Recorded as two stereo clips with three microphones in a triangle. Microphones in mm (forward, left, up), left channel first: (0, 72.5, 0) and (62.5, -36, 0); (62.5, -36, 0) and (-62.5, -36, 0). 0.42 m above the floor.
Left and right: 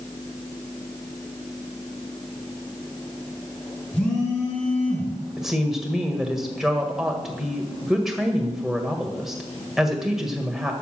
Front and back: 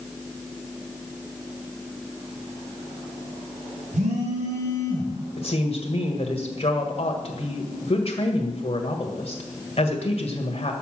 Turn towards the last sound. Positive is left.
turn(degrees=25)